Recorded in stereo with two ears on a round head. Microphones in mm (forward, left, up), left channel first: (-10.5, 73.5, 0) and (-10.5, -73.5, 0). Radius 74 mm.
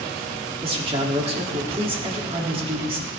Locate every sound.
0.6 s a man speaking: 35° right (ahead or behind), 1.8 m